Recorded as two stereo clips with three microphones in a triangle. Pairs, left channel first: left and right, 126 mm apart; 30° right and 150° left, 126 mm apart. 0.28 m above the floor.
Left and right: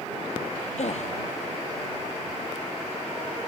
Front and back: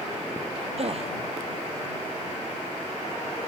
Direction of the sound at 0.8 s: 115° left.